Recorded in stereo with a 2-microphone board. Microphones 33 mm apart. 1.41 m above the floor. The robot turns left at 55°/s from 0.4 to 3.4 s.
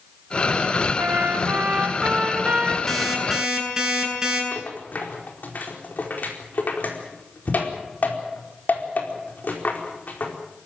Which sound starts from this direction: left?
A rattle, at 4.5 s.